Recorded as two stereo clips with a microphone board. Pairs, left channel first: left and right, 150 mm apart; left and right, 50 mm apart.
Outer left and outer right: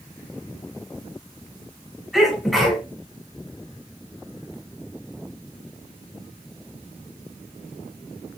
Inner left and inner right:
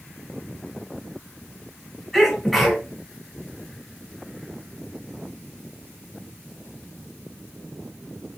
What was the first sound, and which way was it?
A sneeze, centre (ahead or behind).